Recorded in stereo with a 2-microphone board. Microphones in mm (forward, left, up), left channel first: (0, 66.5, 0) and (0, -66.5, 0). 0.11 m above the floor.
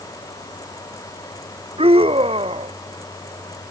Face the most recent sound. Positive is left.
turn(degrees=-45)  # may be behind; listen again after turning